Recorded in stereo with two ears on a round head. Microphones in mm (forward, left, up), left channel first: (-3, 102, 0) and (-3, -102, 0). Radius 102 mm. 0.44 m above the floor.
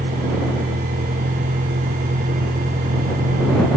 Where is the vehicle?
30° right (ahead or behind); by 3.8 s 35° right (ahead or behind).